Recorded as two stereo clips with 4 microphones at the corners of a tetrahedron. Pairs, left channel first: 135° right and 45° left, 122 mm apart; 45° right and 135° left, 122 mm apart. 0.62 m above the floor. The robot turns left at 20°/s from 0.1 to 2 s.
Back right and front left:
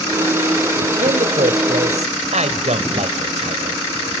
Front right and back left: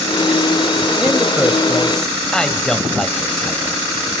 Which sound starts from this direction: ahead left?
A man speaking, at 1.0 s.